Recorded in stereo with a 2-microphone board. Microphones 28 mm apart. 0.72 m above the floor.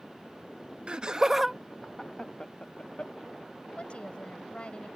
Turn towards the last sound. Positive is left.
turn(degrees=45)  # may be behind; listen again after turning